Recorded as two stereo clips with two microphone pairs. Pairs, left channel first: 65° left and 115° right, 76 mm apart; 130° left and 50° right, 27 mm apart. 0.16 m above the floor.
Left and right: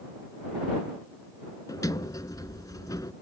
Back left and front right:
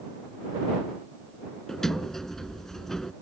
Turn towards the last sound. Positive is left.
turn(degrees=55)